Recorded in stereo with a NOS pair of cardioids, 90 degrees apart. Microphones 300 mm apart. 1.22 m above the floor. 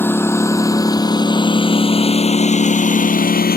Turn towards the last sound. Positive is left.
turn(degrees=30)